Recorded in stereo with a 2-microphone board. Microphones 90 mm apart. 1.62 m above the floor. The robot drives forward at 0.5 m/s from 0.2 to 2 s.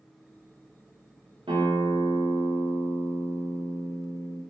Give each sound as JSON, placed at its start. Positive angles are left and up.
{"t": 1.5, "sound": "a guitar", "side_deg": -75, "distance_m": 1.0}